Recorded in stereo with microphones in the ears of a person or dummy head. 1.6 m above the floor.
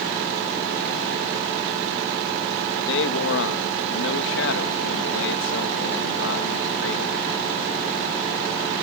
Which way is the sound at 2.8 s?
70° left (ahead or behind).